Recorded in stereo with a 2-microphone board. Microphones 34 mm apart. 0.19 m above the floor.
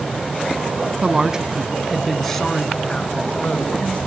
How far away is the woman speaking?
About 1.2 m.